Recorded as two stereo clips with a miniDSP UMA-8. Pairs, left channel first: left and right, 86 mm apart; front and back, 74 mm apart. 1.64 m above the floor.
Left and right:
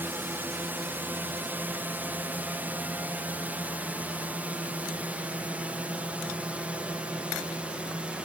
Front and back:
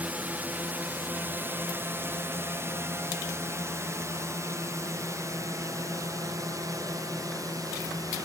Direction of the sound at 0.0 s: 135° right.